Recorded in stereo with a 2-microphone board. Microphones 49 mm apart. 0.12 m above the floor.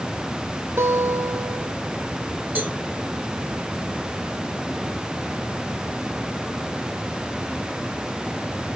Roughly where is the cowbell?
Right.